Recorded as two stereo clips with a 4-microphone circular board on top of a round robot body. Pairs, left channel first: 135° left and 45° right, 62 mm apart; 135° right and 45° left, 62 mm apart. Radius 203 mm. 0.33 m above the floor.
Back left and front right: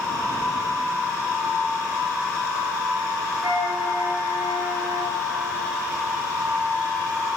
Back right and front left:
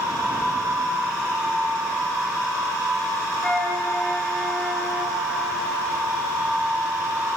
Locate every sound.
3.4 s a flute: 55° right, 4.5 m